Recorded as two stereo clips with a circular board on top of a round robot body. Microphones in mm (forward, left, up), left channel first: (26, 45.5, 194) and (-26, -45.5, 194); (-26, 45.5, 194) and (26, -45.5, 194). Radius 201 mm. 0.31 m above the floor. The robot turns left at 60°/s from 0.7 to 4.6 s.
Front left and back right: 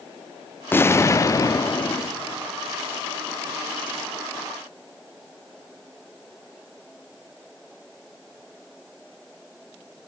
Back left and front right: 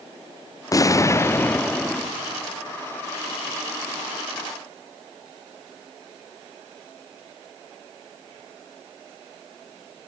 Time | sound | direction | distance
0.7 | an explosion | 110° left | 0.9 m